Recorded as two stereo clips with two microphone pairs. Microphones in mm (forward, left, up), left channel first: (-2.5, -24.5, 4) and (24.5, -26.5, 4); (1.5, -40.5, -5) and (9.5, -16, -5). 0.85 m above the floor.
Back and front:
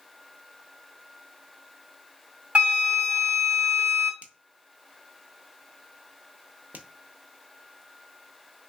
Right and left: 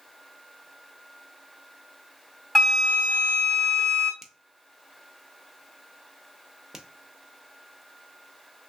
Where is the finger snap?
5° right, 0.6 m.